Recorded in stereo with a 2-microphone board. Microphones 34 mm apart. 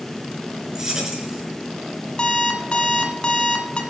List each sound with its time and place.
0.8 s keys jangling: 15° right (ahead or behind), 5.5 m
2.2 s an alarm clock: 30° left (ahead or behind), 2.5 m